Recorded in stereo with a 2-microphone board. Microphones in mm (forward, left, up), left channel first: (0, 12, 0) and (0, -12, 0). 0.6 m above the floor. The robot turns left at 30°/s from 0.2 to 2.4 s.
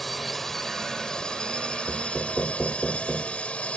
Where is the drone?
175° left; by 3.8 s 110° left.